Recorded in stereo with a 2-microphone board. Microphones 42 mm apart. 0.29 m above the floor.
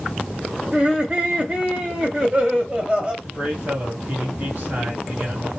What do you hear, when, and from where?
0.7 s laughter: 25° right (ahead or behind), 1.2 m
3.2 s a man speaking: 45° right (ahead or behind), 1.6 m